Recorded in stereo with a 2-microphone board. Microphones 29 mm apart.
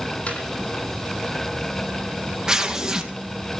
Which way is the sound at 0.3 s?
50° left (ahead or behind).